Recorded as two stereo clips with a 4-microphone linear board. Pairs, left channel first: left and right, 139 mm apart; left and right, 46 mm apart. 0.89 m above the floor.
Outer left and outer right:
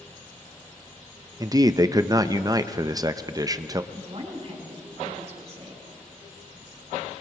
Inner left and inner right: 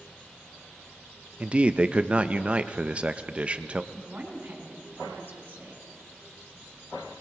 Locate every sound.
1.4 s a man speaking: 25° right (ahead or behind), 0.5 m
3.9 s a woman speaking: 50° right (ahead or behind), 4 m